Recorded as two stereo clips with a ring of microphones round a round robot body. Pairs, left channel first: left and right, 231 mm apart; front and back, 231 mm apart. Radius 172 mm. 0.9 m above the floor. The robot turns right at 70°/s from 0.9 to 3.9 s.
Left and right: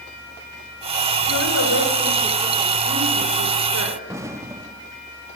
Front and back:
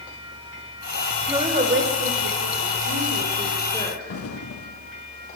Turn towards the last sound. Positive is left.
turn(degrees=-10)